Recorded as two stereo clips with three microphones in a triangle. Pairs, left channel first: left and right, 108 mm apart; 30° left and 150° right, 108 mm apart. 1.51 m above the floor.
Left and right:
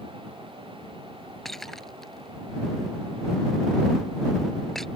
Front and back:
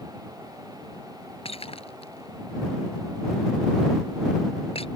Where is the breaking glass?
Straight ahead.